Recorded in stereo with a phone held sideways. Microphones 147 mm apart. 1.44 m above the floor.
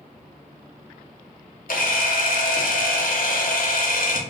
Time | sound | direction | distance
1.7 | a camera shutter | 70° left (ahead or behind) | 0.7 m